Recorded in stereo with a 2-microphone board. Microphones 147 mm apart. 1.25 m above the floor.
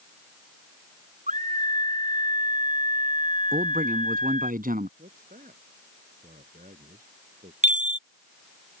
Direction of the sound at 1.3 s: 55° right (ahead or behind).